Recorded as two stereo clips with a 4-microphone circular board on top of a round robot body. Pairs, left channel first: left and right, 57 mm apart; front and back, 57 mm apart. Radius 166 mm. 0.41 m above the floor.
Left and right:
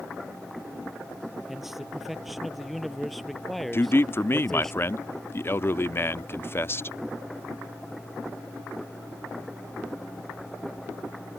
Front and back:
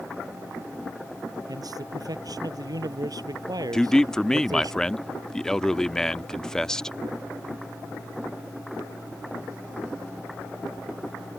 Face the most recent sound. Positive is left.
turn(degrees=75)